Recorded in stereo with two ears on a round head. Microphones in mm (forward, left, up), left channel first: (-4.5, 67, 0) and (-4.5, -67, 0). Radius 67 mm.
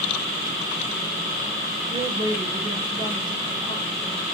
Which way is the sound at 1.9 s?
30° right (ahead or behind).